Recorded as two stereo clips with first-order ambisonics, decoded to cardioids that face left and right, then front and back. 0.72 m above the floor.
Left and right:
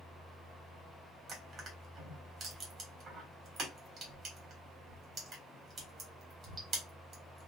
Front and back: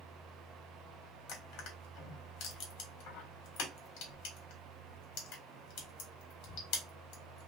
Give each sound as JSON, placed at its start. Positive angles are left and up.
{"t": 1.3, "sound": "crushing", "azimuth_deg": -30, "distance_m": 1.5}